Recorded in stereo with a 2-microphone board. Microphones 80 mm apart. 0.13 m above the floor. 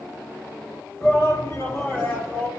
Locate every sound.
1.0 s a shout: 30° left (ahead or behind), 1.8 m; by 2.5 s 20° left (ahead or behind), 1.5 m